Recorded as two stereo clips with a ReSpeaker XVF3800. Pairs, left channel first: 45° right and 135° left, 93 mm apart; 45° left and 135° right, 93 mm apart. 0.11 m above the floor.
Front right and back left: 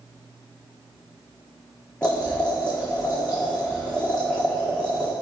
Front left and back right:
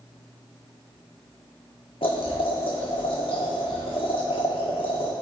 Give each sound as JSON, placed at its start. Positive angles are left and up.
{"t": 2.0, "sound": "boiling", "azimuth_deg": 35, "distance_m": 1.5}